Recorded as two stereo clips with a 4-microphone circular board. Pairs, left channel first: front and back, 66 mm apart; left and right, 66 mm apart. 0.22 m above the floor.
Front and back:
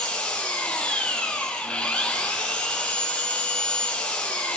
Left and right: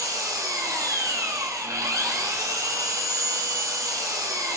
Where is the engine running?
70° right, 1.6 m.